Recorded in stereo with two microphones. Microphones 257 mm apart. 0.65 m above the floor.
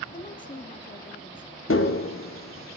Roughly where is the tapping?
Left.